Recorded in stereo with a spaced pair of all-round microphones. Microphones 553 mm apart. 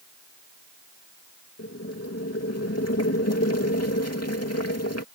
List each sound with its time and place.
1.6 s boiling: 25° left (ahead or behind)